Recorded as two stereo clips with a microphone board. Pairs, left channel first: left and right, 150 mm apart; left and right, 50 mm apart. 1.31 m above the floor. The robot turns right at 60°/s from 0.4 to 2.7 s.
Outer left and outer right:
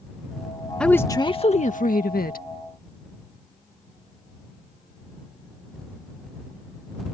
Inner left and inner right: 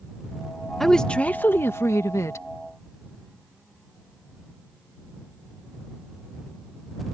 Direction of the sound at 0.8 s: 5° left.